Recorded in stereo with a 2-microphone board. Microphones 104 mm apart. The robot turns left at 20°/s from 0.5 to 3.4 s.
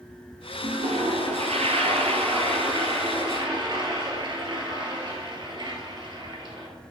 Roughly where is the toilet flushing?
Right.